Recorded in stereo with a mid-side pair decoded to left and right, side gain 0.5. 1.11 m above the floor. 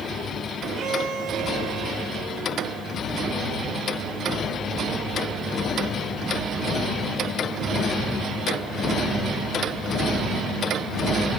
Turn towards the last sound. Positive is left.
turn(degrees=-60)